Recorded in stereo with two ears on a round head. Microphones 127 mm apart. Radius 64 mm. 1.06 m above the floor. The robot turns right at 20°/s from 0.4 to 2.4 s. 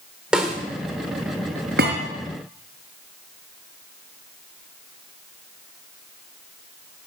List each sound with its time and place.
0.3 s a snare drum: 5° right (ahead or behind), 2.5 m; by 0.6 s centre (ahead or behind), 2.5 m
1.8 s a thud: 75° right (ahead or behind), 4.5 m; by 2.0 s 70° right (ahead or behind), 4.5 m